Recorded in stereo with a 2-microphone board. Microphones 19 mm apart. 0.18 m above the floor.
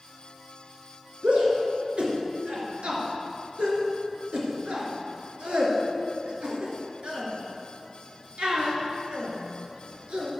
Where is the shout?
65° right (ahead or behind), 2.5 m.